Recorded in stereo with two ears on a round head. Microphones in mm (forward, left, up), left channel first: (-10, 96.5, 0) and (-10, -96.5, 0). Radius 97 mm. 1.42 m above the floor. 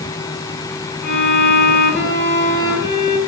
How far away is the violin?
About 8.5 m.